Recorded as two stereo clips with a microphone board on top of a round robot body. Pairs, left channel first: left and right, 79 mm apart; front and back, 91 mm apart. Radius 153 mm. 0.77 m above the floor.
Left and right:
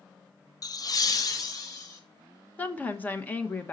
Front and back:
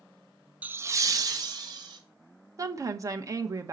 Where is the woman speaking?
150° left, 1.2 m.